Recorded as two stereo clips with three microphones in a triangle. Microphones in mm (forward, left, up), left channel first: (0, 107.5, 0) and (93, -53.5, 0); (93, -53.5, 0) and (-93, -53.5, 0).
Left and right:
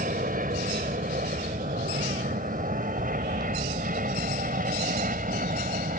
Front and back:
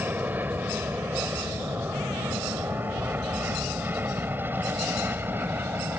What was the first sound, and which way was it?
An aircraft, 100° right.